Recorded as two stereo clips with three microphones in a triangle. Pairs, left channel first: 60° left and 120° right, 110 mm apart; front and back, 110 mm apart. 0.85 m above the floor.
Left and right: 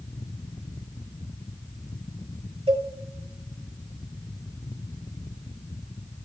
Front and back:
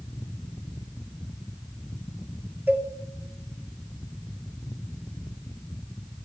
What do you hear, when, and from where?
2.7 s a cowbell: 110° right, 1.9 m